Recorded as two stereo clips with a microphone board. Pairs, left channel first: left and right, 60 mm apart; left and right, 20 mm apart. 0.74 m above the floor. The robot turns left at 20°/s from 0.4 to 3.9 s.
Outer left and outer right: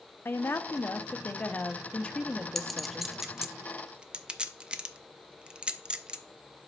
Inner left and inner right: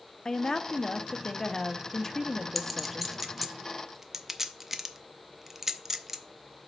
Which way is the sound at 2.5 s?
5° left (ahead or behind).